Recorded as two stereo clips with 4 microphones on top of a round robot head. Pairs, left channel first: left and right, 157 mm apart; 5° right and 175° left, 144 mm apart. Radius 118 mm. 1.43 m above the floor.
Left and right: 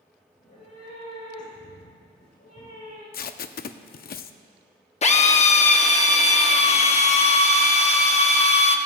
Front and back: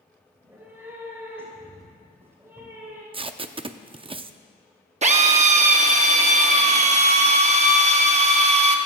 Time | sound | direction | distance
0.3 | a cat meowing | 100° left | 5 m
3.1 | tape being pulled | 120° left | 0.6 m
5.0 | a drill | 135° left | 0.9 m